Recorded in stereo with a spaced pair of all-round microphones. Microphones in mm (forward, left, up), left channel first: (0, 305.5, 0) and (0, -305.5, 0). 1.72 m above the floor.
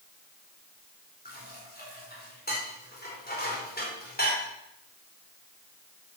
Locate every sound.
1.2 s dishes clattering: 15° left (ahead or behind), 4.5 m